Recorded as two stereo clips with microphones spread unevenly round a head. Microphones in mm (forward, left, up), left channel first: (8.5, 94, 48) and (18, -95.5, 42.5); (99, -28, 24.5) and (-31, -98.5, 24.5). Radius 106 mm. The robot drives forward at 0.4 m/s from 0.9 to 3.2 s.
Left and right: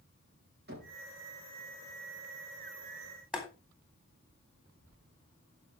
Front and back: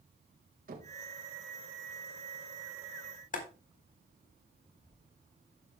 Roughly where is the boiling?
Ahead.